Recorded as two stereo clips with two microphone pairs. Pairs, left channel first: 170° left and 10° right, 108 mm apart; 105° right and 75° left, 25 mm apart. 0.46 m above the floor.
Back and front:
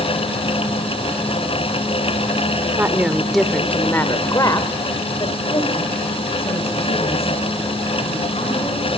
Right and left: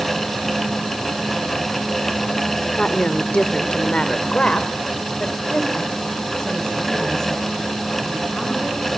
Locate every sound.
2.8 s a woman speaking: 70° right, 1.7 m; by 8.9 s 170° right, 6 m